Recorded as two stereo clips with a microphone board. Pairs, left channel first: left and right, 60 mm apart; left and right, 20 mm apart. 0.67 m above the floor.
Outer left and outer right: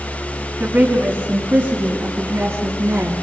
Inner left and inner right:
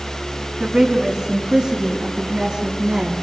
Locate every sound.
0.6 s a woman speaking: 35° right (ahead or behind), 5 m; by 3.1 s 55° right (ahead or behind), 8 m